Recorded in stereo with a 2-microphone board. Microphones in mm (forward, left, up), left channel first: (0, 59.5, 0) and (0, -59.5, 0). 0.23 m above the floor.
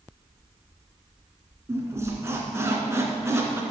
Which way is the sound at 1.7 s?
25° right (ahead or behind).